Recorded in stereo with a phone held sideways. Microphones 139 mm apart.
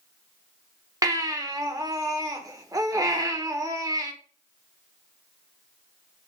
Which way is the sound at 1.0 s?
25° right (ahead or behind).